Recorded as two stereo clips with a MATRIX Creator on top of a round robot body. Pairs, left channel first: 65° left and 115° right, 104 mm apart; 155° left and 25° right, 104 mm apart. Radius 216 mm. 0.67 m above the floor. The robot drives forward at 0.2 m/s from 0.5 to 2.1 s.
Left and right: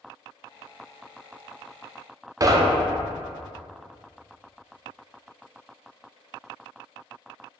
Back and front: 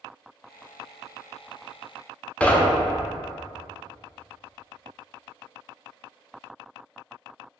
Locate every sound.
2.4 s knocking: 135° right, 0.5 m